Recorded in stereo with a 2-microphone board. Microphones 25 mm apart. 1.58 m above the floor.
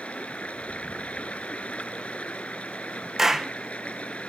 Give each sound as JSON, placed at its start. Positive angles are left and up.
{"t": 0.0, "sound": "running water", "side_deg": 70}
{"t": 3.2, "sound": "a clap", "side_deg": -20}